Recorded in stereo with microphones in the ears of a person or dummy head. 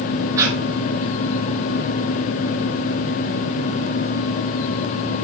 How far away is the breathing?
About 3 m.